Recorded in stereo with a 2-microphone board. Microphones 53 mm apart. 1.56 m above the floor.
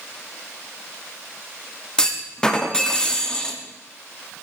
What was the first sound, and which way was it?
A clunk, 15° left (ahead or behind).